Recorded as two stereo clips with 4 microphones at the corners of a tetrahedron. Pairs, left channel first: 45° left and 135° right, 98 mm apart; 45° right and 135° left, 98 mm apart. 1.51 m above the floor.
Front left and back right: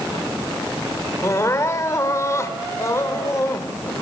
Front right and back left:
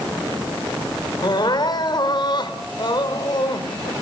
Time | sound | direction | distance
1.2 | crying | 10° right | 2 m